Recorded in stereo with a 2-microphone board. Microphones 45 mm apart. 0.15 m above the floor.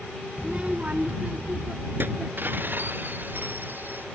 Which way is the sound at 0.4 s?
20° right (ahead or behind).